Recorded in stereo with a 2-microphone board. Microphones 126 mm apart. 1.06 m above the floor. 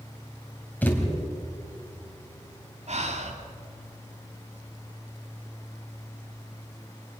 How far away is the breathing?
About 2.0 m.